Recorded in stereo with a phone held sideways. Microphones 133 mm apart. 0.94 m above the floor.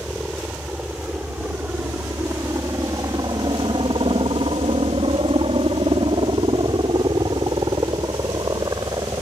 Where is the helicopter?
5° right (ahead or behind); by 9.2 s 25° right (ahead or behind).